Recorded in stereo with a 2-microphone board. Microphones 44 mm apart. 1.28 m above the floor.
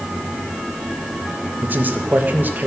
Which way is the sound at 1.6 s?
45° right (ahead or behind).